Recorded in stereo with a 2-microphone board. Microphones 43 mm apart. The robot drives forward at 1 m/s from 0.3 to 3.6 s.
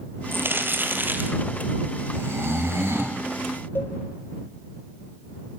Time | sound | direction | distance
0.3 | crumpling | 60° right (ahead or behind) | 3 m
2.1 | snoring | 70° right (ahead or behind) | 5.5 m
3.8 | a cowbell | 55° left (ahead or behind) | 5.5 m